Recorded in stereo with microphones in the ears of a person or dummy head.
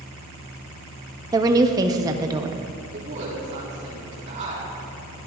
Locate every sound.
1.3 s a woman speaking: 15° right (ahead or behind), 0.6 m
2.9 s a woman speaking: 40° right (ahead or behind), 4 m